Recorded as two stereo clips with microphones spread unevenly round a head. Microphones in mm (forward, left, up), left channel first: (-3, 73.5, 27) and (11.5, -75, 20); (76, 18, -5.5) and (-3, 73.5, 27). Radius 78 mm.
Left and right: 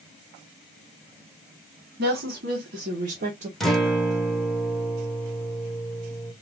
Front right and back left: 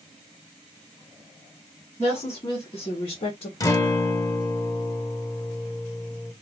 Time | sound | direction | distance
2.0 | a woman speaking | 100° right | 1.3 m
3.6 | a guitar | 5° left | 0.8 m